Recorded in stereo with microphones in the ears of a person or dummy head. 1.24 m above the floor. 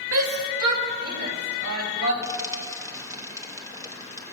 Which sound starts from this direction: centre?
Frying, at 2.2 s.